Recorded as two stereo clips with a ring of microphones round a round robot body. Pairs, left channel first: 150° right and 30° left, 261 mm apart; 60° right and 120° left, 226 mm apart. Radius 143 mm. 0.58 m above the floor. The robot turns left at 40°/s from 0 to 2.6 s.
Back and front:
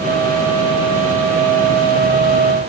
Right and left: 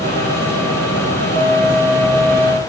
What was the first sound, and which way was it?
Only background noise.